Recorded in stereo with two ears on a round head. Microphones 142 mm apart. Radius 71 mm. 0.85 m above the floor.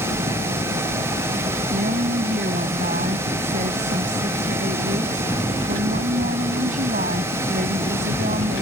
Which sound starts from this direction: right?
A woman speaking, at 1.7 s.